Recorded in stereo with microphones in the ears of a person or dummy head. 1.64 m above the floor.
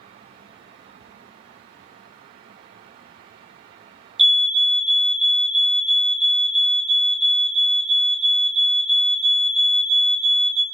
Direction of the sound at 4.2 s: 5° right (ahead or behind).